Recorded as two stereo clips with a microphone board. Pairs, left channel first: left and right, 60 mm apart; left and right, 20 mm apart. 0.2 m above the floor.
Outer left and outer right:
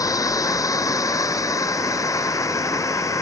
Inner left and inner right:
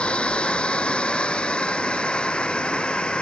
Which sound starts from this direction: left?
A drone, at 0.0 s.